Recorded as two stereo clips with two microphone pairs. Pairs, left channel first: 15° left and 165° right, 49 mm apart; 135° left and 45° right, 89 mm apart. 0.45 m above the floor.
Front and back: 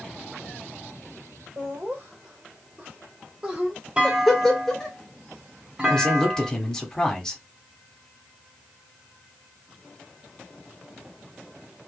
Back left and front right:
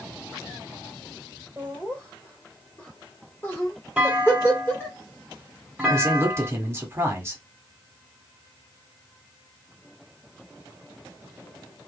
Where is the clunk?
115° right, 1.3 m.